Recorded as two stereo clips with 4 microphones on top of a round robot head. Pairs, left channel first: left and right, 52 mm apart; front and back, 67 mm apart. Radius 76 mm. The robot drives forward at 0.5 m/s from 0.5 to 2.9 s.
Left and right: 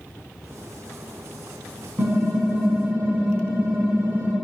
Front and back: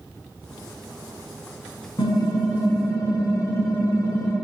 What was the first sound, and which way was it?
Typing on a keyboard, 35° right.